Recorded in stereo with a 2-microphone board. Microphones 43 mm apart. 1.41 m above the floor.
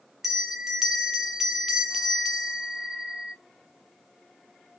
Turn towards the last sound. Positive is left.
turn(degrees=-5)  # may be behind; listen again after turning